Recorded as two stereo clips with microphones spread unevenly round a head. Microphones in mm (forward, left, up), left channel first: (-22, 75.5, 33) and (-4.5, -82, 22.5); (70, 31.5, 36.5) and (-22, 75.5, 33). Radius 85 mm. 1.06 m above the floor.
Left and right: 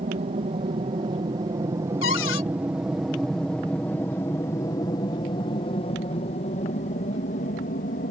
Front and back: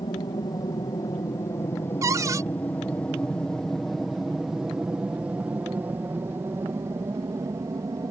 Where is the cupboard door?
95° left.